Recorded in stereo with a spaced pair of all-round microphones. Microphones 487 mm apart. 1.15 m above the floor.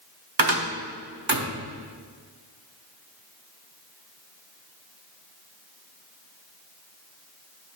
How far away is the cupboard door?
About 1.0 m.